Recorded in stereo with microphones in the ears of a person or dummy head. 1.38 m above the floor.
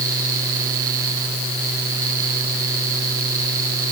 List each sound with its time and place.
Only background noise.